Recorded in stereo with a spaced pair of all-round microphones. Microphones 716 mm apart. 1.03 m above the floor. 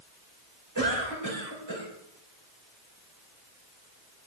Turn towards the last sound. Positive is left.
turn(degrees=-25)  # may be behind; listen again after turning